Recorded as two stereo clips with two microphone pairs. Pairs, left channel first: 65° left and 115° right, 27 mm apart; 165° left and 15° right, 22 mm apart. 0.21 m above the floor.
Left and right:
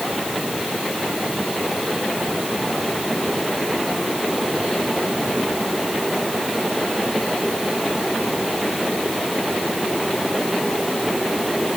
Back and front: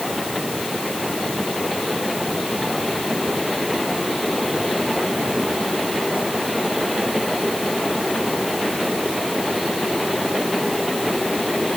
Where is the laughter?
I don't hear laughter.